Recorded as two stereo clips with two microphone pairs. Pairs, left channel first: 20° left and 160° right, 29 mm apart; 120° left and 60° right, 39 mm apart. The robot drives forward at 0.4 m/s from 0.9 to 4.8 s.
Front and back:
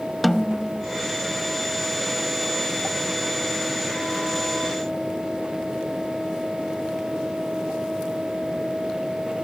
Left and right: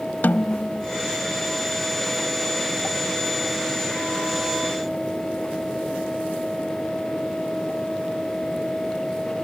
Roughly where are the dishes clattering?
I don't hear dishes clattering.